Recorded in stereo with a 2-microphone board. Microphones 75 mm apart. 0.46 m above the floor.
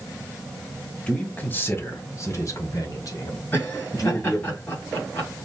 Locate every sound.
1.1 s a man speaking: 15° left (ahead or behind), 1.1 m; by 4.5 s 60° left (ahead or behind), 2.5 m
3.5 s laughter: 30° left (ahead or behind), 3 m